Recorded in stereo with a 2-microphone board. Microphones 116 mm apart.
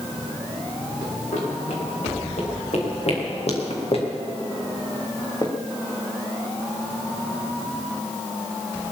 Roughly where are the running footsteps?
Left.